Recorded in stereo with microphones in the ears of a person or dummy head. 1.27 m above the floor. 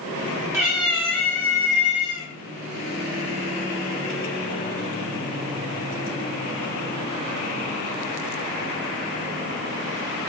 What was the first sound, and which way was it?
A cat meowing, 5° right (ahead or behind).